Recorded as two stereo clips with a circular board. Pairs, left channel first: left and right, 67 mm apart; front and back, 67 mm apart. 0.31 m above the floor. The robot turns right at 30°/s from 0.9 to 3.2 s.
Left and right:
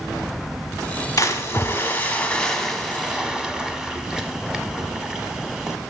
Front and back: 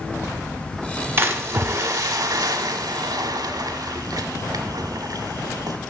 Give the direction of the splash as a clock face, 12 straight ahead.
8 o'clock.